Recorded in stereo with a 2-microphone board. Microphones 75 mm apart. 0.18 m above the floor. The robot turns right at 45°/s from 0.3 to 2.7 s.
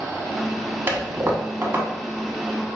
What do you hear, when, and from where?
0.9 s a toilet flushing: 30° right (ahead or behind), 0.8 m; by 1.9 s 25° right (ahead or behind), 0.8 m